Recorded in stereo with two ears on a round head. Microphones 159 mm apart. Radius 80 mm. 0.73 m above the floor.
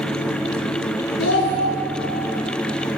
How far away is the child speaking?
About 1.1 m.